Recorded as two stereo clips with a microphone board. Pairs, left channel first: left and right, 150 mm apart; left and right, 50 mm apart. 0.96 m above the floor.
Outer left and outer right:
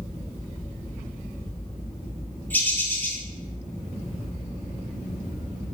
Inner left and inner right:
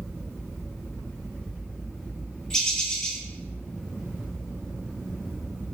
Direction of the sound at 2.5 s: 10° left (ahead or behind).